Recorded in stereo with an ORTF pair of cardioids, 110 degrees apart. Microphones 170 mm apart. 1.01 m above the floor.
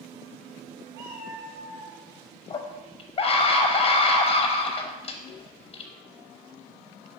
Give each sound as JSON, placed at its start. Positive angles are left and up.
{"t": 0.9, "sound": "a cat meowing", "azimuth_deg": -55, "distance_m": 2.5}
{"t": 2.5, "sound": "a scream", "azimuth_deg": 35, "distance_m": 0.8}